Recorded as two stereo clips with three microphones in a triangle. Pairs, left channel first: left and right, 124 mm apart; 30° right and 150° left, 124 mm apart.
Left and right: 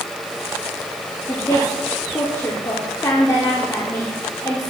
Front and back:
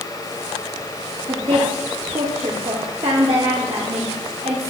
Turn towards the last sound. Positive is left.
turn(degrees=140)